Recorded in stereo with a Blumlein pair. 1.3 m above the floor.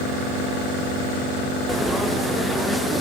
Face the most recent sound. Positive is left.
turn(degrees=0)